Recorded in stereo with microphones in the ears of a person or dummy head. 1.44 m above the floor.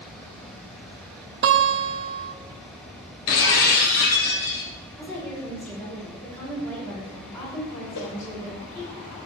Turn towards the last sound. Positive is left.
turn(degrees=75)  # may be behind; listen again after turning